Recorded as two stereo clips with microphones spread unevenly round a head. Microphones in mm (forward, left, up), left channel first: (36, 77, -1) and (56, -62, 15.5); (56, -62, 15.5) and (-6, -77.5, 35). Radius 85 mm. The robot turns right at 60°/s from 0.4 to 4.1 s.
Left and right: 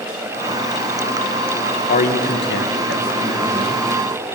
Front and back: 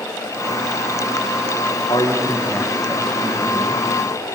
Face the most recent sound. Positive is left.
turn(degrees=-165)